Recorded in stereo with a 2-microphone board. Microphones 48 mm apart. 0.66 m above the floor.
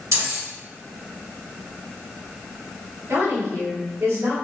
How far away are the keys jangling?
About 1.6 m.